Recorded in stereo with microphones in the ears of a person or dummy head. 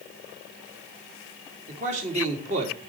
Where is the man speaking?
40° right (ahead or behind), 3.5 m.